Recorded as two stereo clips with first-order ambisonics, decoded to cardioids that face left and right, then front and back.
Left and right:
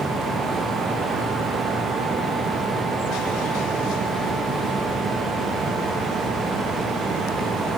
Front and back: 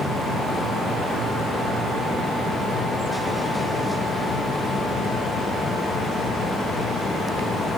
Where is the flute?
I don't hear a flute.